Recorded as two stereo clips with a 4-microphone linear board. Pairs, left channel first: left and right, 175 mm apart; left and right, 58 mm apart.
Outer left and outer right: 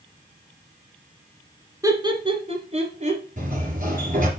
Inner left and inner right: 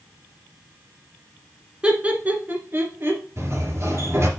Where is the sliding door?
50° right (ahead or behind), 2.5 m.